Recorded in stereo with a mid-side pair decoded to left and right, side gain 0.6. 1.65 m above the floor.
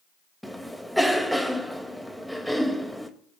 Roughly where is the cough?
Ahead.